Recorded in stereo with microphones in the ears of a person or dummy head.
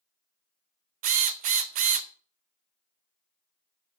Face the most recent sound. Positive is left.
turn(degrees=-40)  # may be behind; listen again after turning